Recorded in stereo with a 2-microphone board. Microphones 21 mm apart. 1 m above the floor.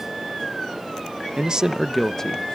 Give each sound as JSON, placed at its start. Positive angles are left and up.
{"t": 1.4, "sound": "a man speaking", "side_deg": -45, "distance_m": 0.7}